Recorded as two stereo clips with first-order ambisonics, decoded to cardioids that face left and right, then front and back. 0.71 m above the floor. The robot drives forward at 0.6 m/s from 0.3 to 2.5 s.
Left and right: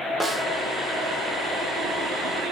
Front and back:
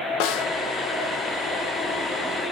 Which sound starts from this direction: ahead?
A snare drum, at 0.2 s.